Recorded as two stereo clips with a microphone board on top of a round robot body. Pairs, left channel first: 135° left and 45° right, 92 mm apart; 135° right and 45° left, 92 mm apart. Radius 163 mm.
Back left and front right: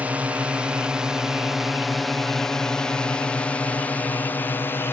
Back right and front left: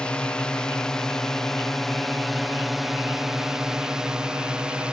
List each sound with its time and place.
0.0 s a drone: 80° right; by 4.9 s 110° left